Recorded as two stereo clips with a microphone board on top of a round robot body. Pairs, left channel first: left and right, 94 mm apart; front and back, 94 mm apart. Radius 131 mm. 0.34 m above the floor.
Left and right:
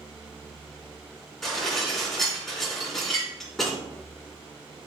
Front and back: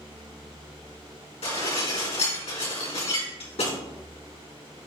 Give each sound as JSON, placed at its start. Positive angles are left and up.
{"t": 1.4, "sound": "dishes clattering", "azimuth_deg": 0, "distance_m": 3.5}